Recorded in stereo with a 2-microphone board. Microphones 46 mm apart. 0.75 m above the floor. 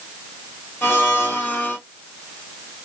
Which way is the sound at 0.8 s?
65° left (ahead or behind).